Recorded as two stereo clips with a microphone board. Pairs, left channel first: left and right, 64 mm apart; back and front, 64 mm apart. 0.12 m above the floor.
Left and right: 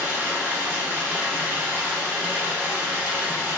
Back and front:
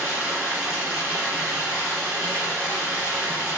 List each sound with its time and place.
0.0 s running water: 60° right, 1.4 m